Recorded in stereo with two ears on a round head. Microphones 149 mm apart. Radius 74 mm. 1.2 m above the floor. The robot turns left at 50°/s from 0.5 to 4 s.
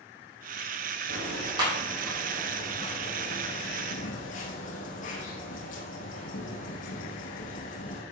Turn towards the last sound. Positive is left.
turn(degrees=80)